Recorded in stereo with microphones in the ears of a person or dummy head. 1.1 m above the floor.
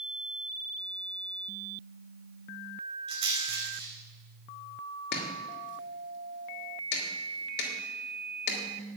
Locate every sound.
3.1 s a rattle: 30° right (ahead or behind), 5.5 m
5.1 s chopping: 60° left (ahead or behind), 3 m